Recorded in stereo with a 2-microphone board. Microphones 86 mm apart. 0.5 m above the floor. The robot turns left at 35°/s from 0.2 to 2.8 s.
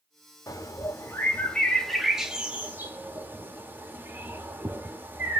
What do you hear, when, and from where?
0.5 s a bird: 40° left (ahead or behind), 0.8 m; by 5.4 s 25° right (ahead or behind), 0.8 m